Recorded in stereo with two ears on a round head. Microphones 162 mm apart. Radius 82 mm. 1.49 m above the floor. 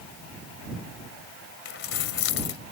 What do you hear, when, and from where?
1.6 s keys jangling: 75° left (ahead or behind)